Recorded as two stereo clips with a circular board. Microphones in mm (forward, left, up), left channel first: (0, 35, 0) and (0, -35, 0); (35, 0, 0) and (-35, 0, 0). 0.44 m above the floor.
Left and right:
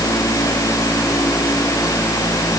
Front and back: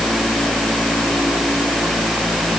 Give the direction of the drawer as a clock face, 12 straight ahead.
I don't hear a drawer.